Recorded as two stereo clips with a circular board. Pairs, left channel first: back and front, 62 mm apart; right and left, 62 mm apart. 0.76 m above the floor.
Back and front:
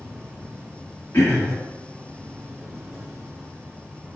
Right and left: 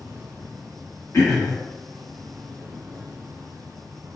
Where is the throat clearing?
135° right, 1.8 m.